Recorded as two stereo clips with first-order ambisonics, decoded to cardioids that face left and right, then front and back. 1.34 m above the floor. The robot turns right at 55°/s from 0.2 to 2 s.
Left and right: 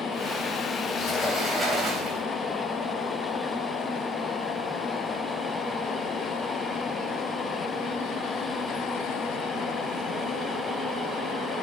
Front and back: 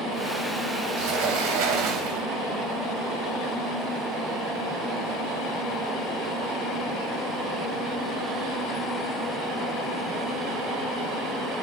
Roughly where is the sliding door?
Behind left.